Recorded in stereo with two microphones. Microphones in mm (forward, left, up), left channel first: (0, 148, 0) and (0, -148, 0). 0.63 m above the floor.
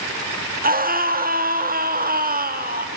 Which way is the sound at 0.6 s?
30° right (ahead or behind).